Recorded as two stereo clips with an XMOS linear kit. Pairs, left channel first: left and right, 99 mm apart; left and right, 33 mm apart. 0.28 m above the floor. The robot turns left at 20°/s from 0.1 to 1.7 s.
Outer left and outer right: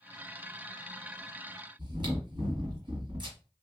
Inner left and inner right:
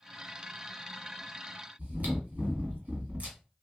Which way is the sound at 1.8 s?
50° right (ahead or behind).